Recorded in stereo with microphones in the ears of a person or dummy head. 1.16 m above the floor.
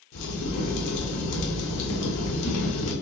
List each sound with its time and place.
0.1 s a crack: 65° left (ahead or behind), 0.8 m